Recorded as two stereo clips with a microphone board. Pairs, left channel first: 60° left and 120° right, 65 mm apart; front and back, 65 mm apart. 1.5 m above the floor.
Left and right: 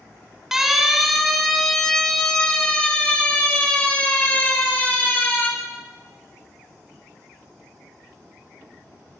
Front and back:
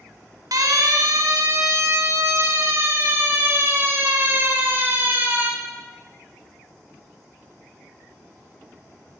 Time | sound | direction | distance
0.5 | a siren | 155° left | 4.5 m